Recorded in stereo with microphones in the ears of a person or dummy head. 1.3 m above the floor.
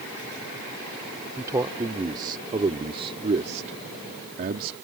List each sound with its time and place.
1.4 s a man speaking: 20° right (ahead or behind); by 4.7 s 55° right (ahead or behind)